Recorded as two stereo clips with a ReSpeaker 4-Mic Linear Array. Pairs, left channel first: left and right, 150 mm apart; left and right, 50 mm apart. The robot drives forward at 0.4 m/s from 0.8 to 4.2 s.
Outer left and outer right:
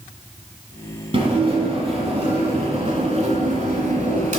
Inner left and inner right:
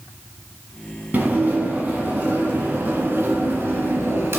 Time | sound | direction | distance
1.1 | dishes clattering | 40° right (ahead or behind) | 3 m